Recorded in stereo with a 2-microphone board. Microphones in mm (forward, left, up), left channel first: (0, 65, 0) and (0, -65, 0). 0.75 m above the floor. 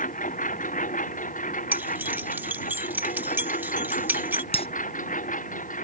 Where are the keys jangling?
15° right (ahead or behind).